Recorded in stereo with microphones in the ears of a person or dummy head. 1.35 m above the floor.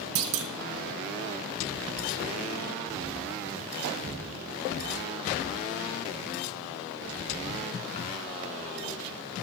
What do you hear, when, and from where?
0.1 s a clunk: 55° right (ahead or behind), 0.6 m